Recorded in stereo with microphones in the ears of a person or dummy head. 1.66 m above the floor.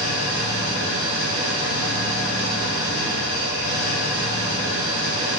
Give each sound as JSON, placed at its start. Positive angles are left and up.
{"t": 0.0, "sound": "an engine running", "side_deg": -70, "distance_m": 1.3}